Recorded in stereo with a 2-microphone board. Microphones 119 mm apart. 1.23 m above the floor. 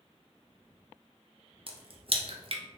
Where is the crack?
50° right (ahead or behind), 0.7 m.